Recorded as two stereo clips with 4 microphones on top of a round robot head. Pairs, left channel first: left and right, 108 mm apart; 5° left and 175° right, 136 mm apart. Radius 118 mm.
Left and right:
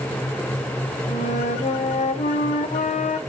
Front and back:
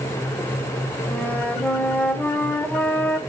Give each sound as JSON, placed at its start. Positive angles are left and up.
{"t": 1.1, "sound": "a flute", "azimuth_deg": 80, "distance_m": 1.9}